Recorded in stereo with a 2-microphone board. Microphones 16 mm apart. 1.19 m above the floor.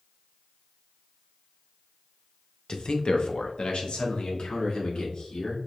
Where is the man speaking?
55° left (ahead or behind), 0.6 m; by 5.6 s 80° left, 2 m.